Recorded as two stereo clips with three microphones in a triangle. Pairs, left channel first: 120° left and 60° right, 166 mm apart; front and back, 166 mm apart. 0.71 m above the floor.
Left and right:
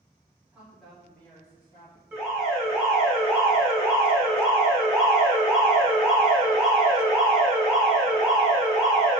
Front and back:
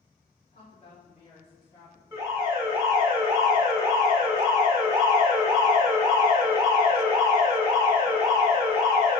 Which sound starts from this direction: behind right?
An alarm, at 2.1 s.